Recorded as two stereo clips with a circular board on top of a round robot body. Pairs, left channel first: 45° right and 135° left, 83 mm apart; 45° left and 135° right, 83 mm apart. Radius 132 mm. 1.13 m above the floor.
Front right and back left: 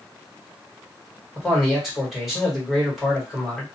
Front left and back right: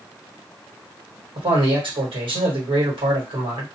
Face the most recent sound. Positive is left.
turn(degrees=-140)